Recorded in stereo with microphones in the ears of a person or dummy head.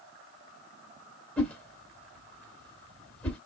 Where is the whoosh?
5° left (ahead or behind), 1.6 m.